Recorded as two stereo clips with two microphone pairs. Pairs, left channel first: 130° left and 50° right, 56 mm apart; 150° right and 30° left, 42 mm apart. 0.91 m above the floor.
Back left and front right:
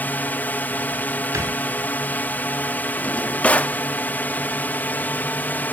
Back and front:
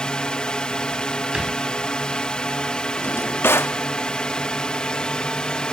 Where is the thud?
40° right.